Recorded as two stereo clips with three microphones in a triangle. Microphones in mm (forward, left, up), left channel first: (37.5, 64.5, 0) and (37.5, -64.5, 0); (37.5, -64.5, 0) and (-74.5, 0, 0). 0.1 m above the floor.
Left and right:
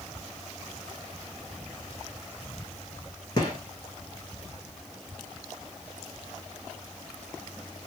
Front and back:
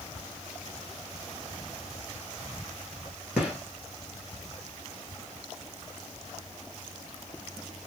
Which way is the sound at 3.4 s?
70° left.